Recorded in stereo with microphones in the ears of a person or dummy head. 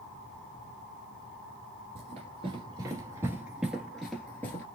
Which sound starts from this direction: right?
Running footsteps, at 1.9 s.